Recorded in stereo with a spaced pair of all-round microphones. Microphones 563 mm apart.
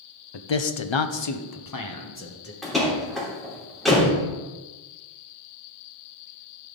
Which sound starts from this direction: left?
A man speaking, at 0.3 s.